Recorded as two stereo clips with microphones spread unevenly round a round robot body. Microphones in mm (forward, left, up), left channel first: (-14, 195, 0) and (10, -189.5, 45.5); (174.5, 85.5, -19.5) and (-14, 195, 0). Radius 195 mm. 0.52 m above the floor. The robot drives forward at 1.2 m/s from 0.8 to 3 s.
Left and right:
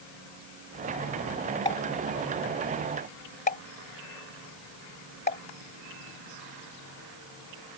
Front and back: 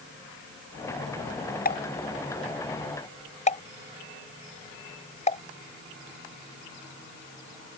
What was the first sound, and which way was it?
A pop, 15° left.